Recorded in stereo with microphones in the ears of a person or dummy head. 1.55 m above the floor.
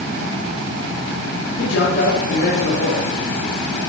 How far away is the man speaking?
About 4 m.